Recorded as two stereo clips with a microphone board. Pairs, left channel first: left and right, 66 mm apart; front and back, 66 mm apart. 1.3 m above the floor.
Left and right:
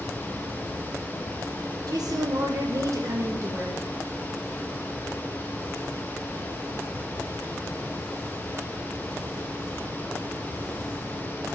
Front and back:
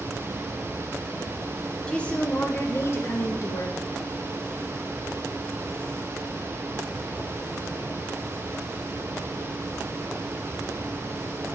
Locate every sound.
1.9 s a woman speaking: 75° right, 1.0 m; by 3.8 s 40° right, 1.7 m